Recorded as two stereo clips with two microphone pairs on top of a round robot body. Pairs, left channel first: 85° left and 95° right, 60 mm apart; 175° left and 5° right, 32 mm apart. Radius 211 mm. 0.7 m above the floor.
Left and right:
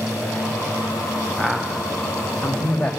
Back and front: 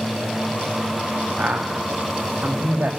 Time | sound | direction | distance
1.4 | a man speaking | 10° right | 2.5 m